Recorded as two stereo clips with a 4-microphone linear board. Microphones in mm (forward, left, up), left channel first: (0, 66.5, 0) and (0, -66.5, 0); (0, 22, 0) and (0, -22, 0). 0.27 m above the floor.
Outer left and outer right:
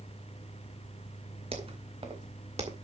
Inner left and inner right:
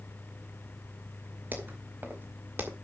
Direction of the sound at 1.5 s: 50° right (ahead or behind).